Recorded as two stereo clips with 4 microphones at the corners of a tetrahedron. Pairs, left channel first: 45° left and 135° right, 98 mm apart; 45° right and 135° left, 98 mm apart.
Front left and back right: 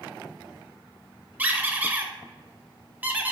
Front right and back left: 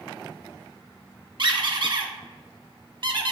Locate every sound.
1.4 s a squeak: 160° left, 0.5 m